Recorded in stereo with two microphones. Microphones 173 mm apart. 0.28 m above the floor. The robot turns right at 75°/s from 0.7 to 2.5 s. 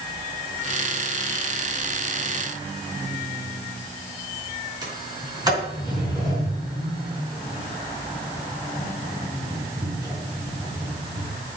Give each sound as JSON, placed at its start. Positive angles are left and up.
{"t": 4.8, "sound": "a sliding door", "side_deg": -20, "distance_m": 4.0}